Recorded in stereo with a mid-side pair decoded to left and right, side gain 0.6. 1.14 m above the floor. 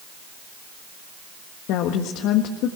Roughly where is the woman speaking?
Left.